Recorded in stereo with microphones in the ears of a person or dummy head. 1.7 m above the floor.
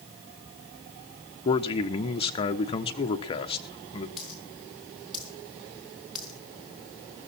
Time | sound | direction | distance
1.4 | a man speaking | 25° left (ahead or behind) | 1.1 m
4.2 | a dropped coin | centre (ahead or behind) | 3.5 m